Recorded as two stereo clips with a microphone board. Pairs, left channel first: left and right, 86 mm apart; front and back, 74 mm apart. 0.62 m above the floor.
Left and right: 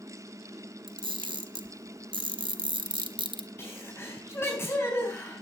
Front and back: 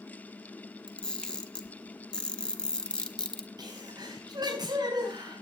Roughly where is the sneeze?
Behind left.